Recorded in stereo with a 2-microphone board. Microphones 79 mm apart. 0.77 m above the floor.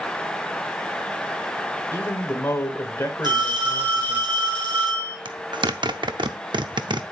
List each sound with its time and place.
1.9 s a man speaking: 30° left (ahead or behind), 2.5 m
3.2 s a phone ringing: 70° right (ahead or behind), 4.5 m
5.2 s a zipper: 75° right (ahead or behind), 0.6 m